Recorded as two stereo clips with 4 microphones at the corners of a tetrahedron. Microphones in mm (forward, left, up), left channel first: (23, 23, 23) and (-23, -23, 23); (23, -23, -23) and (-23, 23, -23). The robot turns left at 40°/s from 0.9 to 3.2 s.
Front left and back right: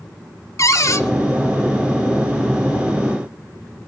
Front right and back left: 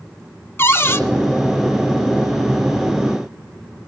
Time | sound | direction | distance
0.6 | a cupboard door | 10° left | 0.8 m